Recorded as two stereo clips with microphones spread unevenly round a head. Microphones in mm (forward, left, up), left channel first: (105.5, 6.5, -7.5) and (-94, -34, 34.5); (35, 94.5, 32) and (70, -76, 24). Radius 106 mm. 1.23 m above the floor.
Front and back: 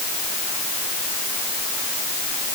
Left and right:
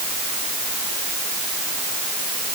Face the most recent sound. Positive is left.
No sound to turn to.